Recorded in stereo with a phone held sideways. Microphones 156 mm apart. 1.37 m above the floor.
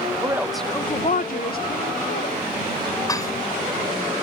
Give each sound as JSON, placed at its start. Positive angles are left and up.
{"t": 0.2, "sound": "a woman speaking", "side_deg": -25}
{"t": 3.1, "sound": "dishes clattering", "side_deg": 25}